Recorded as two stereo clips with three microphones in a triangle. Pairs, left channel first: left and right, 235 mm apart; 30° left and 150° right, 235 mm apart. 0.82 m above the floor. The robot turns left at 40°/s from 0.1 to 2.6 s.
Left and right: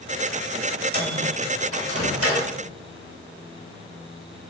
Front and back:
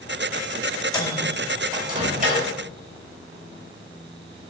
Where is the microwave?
45° right, 4.5 m; by 2.5 s 105° right, 4.5 m.